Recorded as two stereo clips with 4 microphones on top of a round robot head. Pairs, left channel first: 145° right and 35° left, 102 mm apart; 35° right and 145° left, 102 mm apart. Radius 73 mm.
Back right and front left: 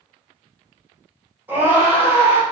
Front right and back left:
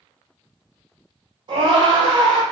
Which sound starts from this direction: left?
A scream, at 1.5 s.